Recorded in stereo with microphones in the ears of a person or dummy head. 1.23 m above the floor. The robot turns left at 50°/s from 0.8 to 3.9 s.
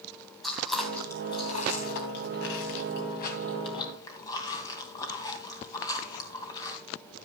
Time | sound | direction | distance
0.4 | chewing | 5° left (ahead or behind) | 2.5 m